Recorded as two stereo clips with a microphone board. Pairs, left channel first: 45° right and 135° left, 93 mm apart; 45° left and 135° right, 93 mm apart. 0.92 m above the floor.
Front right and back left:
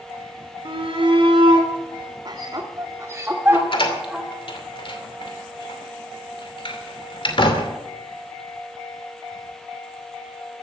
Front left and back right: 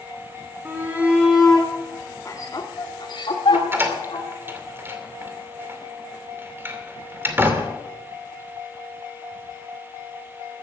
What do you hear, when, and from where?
0.7 s a shout: 155° left, 3 m; by 4.3 s 50° left, 3.5 m
3.5 s a door slam: 70° right, 2.5 m